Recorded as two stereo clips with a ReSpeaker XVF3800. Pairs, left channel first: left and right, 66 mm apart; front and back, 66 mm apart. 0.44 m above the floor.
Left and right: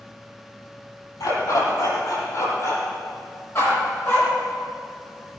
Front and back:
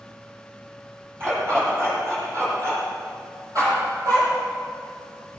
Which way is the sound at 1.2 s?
125° left.